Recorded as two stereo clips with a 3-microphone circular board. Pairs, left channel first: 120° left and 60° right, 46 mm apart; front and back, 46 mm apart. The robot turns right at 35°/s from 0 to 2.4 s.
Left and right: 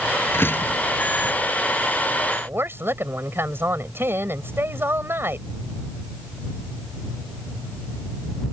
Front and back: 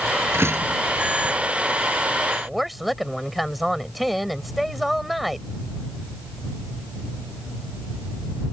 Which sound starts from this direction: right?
A woman speaking, at 2.4 s.